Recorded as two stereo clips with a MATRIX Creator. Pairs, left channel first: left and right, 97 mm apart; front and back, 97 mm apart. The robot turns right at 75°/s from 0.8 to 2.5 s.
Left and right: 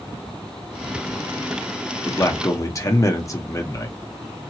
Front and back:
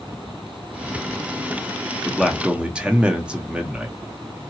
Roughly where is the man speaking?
Left.